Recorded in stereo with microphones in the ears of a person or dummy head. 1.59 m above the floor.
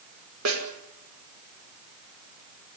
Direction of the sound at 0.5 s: 85° right.